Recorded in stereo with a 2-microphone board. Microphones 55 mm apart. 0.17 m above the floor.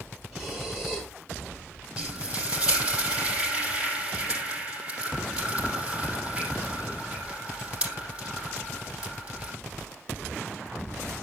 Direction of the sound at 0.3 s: 5° right (ahead or behind).